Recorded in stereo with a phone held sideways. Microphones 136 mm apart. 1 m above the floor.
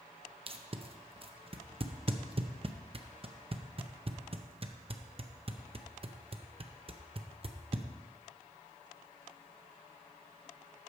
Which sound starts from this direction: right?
Tape being pulled, at 0.5 s.